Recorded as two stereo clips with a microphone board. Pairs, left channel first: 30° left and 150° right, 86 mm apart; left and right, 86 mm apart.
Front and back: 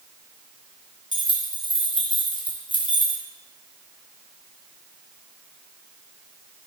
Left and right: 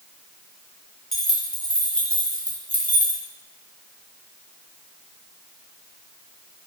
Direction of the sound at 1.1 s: 5° left.